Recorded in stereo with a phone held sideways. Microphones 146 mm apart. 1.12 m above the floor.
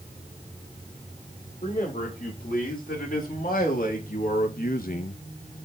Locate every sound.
1.6 s a man speaking: 70° left (ahead or behind), 4 m; by 5.2 s 55° left (ahead or behind), 0.5 m